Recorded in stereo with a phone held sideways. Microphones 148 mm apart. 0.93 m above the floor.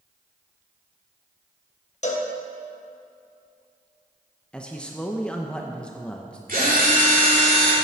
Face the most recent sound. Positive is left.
turn(degrees=-75)  # may be behind; listen again after turning